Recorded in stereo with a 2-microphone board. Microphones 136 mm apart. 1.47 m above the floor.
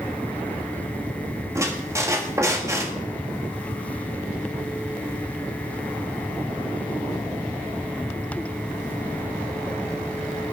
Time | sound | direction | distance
1.6 | a squeak | 20° right (ahead or behind) | 1.9 m